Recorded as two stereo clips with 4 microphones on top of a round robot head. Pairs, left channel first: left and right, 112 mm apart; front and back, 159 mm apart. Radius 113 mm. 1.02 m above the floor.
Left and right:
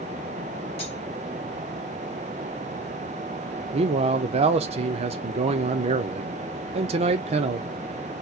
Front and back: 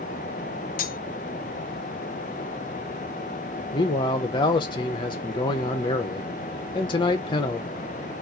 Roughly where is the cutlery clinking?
Ahead left.